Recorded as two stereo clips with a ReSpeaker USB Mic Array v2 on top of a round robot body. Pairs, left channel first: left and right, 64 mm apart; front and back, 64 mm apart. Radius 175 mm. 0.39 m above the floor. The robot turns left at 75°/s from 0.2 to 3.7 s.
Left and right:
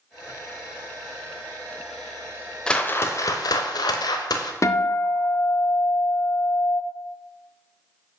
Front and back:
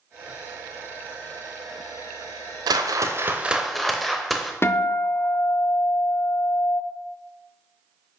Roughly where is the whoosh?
Behind.